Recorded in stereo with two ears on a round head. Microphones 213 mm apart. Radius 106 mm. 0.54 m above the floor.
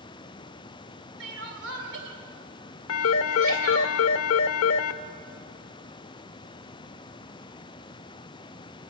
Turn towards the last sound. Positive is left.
turn(degrees=65)  # may be behind; listen again after turning